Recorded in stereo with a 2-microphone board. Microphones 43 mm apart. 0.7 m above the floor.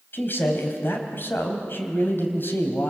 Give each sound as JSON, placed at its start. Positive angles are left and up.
{"t": 0.1, "sound": "a man speaking", "side_deg": 55, "distance_m": 3.5}